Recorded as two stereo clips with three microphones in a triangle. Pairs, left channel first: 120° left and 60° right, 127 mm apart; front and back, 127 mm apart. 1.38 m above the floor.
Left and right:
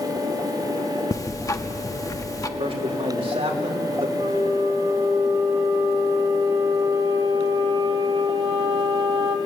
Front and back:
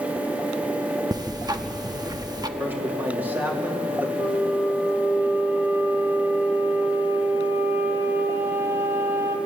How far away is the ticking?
About 0.9 m.